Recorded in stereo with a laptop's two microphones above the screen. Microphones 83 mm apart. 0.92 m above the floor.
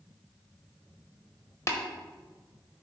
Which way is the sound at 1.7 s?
40° left (ahead or behind).